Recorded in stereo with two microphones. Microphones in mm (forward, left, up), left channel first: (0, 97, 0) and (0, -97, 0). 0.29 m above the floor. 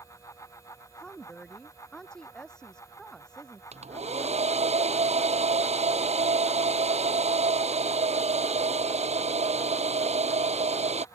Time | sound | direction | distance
1.0 | a woman speaking | 5° left (ahead or behind) | ?
3.7 | a hair dryer | 35° right (ahead or behind) | ?